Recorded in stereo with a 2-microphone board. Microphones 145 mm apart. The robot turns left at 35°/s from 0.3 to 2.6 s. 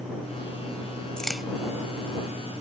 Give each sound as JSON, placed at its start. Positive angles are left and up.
{"t": 1.2, "sound": "a crack", "side_deg": 5}